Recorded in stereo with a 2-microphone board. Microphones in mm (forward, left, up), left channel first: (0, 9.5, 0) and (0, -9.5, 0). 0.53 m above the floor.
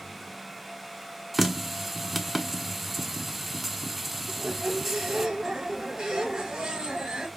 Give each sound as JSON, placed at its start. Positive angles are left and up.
{"t": 1.3, "sound": "a running tap", "side_deg": 0, "distance_m": 0.6}
{"t": 4.3, "sound": "a squeak", "side_deg": -45, "distance_m": 2.0}